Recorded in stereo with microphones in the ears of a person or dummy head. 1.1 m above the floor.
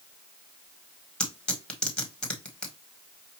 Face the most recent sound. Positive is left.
turn(degrees=10)  # may be behind; listen again after turning